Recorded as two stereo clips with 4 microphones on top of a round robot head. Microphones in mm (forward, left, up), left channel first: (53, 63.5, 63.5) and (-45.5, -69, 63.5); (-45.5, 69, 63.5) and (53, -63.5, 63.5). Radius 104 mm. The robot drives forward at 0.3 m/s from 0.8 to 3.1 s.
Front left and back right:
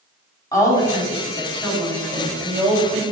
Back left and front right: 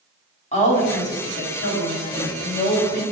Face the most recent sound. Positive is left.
turn(degrees=145)